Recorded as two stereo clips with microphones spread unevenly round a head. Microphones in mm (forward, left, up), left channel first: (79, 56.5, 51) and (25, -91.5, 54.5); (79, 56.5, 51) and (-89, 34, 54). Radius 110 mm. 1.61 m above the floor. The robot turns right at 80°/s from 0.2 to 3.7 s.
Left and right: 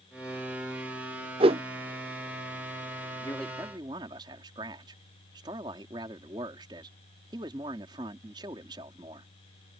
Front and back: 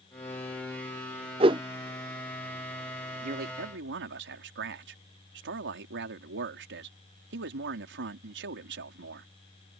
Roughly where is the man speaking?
Behind left.